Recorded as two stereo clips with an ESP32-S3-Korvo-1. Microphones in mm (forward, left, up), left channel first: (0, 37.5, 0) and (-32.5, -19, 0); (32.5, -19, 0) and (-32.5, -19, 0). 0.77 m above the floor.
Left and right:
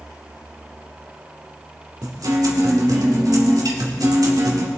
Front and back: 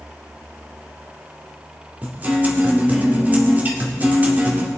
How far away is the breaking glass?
No breaking glass in this recording.